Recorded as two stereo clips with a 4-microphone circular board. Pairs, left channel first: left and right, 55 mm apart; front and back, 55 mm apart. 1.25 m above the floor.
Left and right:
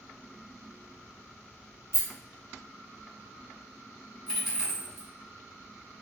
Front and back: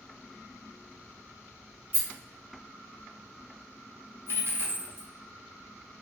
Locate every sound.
1.9 s a rattle: 120° left, 1.2 m
4.3 s a dropped coin: 175° right, 1.2 m